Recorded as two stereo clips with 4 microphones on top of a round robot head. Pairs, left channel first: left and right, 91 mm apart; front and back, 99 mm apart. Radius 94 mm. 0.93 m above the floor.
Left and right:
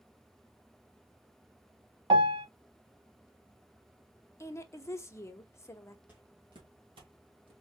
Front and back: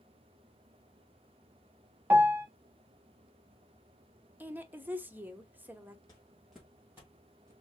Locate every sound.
2.1 s a piano: 110° right, 0.6 m
4.4 s a woman speaking: 120° left, 1.0 m
6.1 s footsteps: 30° right, 0.9 m; by 7.5 s 110° right, 2 m